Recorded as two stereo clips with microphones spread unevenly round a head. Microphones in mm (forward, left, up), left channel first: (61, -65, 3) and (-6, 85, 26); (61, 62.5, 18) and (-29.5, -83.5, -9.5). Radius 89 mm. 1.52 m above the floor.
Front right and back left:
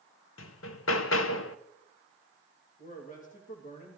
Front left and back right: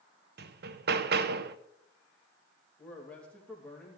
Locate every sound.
0.4 s hammering: 90° right, 0.7 m
2.8 s a man speaking: 25° right, 2.5 m